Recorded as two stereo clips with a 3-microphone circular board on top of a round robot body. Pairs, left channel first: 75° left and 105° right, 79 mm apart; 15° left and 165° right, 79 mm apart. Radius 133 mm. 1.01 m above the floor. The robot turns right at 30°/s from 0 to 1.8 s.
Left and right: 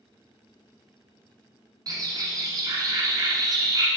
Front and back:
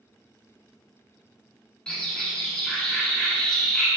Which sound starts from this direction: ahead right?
A bird, at 1.9 s.